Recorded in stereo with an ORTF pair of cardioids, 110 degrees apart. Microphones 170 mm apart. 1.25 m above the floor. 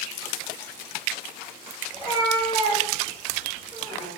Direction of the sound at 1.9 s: 30° right.